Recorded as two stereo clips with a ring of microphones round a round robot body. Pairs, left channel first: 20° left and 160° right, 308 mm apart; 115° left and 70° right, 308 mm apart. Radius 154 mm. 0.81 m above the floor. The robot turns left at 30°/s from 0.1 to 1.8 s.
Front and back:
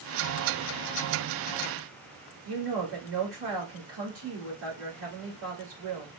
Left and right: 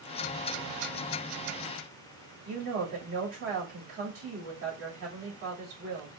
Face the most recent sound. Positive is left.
turn(degrees=-115)